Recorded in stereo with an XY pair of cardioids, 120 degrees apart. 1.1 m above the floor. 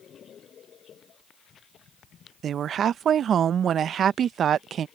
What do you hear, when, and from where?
2.4 s a woman speaking: 45° right